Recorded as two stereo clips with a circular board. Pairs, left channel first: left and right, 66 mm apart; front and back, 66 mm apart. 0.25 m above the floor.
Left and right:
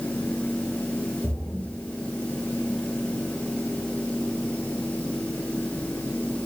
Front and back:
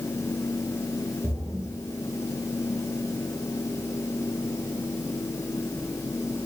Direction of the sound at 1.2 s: 170° left.